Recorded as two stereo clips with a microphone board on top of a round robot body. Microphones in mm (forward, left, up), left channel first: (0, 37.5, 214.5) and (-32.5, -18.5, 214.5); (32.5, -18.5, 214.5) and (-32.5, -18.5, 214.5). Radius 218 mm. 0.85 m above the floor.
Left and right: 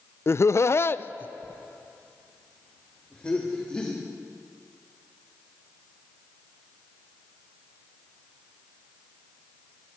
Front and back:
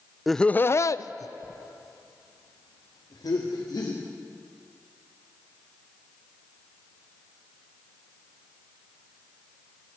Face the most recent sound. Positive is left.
turn(degrees=-15)